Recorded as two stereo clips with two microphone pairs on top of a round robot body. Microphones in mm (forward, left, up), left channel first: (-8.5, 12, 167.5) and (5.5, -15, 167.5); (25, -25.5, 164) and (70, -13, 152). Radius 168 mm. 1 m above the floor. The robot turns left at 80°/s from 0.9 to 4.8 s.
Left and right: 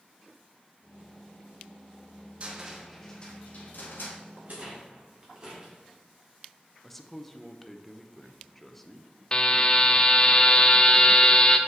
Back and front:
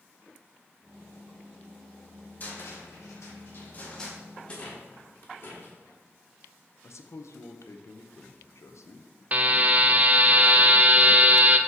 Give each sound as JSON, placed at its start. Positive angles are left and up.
{"t": 2.4, "sound": "a cupboard door", "azimuth_deg": -110, "distance_m": 1.2}
{"t": 4.4, "sound": "a rattle", "azimuth_deg": -95, "distance_m": 1.5}
{"t": 6.8, "sound": "a man speaking", "azimuth_deg": -160, "distance_m": 0.8}
{"t": 9.3, "sound": "a buzzer", "azimuth_deg": 60, "distance_m": 0.6}